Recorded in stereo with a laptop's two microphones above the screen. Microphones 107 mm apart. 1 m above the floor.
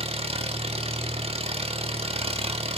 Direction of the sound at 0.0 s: 80° right.